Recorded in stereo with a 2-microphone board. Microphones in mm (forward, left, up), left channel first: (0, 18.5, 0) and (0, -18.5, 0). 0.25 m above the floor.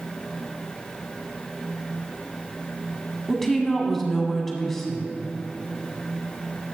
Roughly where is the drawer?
No drawer in this recording.